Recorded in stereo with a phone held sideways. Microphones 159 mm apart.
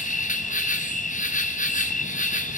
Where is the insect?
50° left (ahead or behind), 1.0 m.